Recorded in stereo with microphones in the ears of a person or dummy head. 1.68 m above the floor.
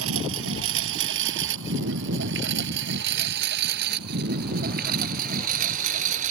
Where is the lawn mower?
75° right (ahead or behind); by 6.3 s 40° right (ahead or behind).